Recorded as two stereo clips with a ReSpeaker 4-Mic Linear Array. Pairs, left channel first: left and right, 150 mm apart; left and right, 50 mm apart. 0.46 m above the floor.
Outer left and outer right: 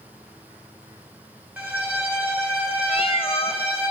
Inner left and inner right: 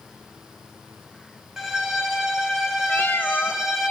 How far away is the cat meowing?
About 0.7 m.